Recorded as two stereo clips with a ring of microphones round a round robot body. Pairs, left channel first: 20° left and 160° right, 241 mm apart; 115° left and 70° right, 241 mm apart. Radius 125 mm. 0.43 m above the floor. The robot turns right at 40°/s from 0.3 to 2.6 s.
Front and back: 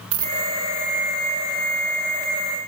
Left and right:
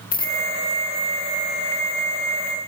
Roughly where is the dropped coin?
Behind.